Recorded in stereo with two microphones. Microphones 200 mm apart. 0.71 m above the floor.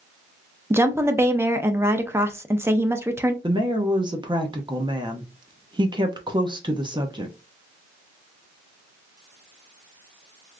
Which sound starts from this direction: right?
A woman speaking, at 3.4 s.